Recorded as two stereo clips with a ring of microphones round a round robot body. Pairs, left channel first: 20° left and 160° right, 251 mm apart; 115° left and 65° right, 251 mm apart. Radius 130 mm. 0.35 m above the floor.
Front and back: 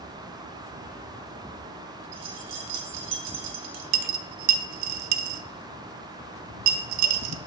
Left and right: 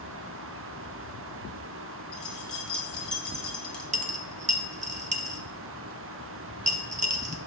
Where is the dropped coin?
130° right, 0.6 m.